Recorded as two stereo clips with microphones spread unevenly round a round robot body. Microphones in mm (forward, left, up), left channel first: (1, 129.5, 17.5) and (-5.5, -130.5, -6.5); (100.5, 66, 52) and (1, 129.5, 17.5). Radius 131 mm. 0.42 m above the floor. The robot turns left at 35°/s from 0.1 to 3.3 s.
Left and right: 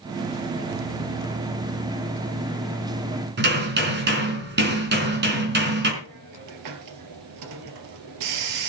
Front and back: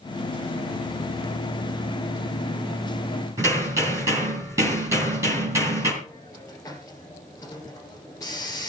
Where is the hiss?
110° right, 2.5 m.